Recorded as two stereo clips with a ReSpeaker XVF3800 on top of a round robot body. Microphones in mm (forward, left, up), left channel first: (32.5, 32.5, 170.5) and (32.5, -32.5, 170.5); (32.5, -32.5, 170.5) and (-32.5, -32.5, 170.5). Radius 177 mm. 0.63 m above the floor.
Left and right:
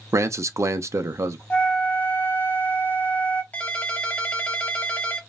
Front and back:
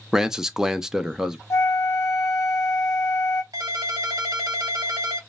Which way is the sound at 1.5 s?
35° left.